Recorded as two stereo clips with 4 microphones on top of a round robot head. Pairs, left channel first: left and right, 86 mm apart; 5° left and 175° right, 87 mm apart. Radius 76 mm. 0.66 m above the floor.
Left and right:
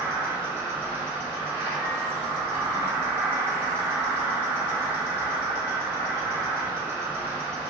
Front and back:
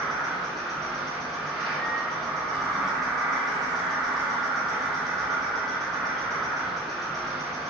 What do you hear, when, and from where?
0.0 s an insect: 80° right, 1.3 m